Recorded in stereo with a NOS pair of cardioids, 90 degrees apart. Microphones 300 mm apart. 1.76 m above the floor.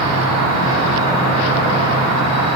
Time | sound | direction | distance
0.0 | an insect | 55° right | 1.7 m